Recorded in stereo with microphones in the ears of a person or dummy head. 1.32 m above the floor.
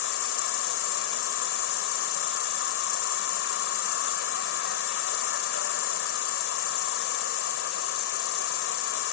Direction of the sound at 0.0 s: 85° left.